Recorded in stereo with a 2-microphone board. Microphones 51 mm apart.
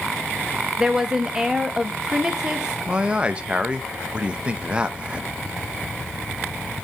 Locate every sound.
0.8 s a woman speaking: 15° right (ahead or behind), 0.9 m
2.9 s a man speaking: 20° right (ahead or behind), 0.6 m